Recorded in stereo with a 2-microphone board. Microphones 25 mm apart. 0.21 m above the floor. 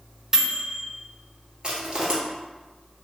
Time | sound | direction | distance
0.3 | a microwave | 20° right (ahead or behind) | 1.0 m
1.6 | crushing | 30° right (ahead or behind) | 1.2 m